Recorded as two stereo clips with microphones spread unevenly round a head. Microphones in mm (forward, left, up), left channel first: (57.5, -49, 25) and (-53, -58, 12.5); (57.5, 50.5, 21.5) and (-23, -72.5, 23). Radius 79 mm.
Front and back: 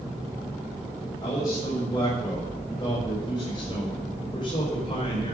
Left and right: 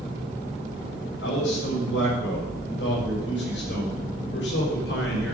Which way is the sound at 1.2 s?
75° left.